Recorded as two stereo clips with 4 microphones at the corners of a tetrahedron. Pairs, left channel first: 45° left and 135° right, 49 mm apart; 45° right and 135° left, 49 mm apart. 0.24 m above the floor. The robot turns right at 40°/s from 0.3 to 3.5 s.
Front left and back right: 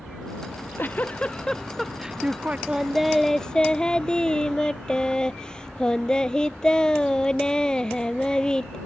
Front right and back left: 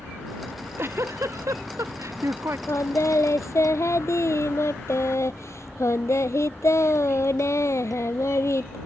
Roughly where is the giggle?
Left.